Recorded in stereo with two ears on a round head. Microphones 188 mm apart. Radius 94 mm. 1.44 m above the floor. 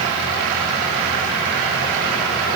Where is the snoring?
No snoring in this recording.